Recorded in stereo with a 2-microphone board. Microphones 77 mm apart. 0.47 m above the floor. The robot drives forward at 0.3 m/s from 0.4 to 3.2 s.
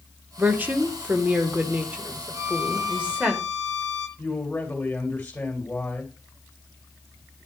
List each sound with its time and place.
0.4 s a woman speaking: 25° right (ahead or behind), 0.9 m; by 3.3 s 15° right (ahead or behind), 1.4 m
2.3 s a violin: 40° right (ahead or behind), 2 m; by 4.1 s 35° right (ahead or behind), 2 m
4.2 s a man speaking: 15° left (ahead or behind), 2 m